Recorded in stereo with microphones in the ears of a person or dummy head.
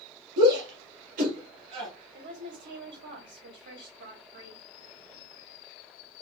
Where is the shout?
65° right (ahead or behind), 2 m; by 1.9 s 30° right (ahead or behind), 2.0 m.